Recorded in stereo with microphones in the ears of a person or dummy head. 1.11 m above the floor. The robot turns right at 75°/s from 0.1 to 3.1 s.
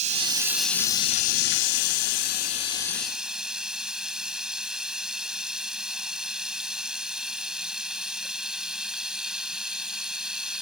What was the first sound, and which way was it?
Running water, 40° right.